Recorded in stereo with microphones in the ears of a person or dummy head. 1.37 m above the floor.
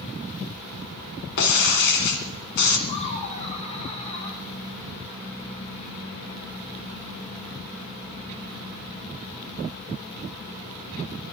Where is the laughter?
40° left (ahead or behind), 1.5 m.